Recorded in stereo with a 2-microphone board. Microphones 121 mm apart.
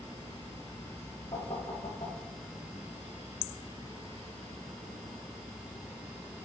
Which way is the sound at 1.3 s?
60° left (ahead or behind).